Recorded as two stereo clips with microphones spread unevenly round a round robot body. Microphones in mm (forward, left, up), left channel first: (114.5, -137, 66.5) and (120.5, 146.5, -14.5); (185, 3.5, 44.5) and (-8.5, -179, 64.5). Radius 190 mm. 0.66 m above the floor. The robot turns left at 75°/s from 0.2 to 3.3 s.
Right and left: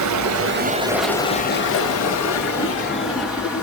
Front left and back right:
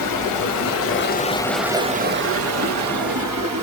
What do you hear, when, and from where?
0.0 s running water: 55° left, 0.8 m; by 3.6 s straight behind, 0.8 m